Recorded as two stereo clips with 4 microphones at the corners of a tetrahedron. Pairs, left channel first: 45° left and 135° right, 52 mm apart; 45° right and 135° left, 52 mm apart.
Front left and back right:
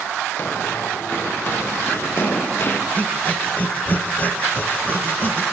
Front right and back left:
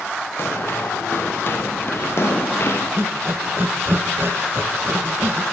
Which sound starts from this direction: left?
Breathing, at 3.0 s.